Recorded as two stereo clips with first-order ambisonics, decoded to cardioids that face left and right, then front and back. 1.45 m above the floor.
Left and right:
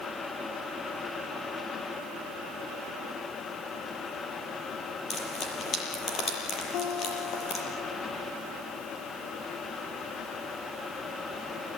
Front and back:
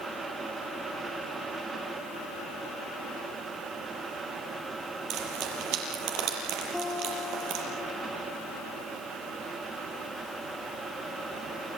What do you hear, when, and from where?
5.1 s frying: 150° left, 6.5 m
6.7 s a guitar: 90° left, 3 m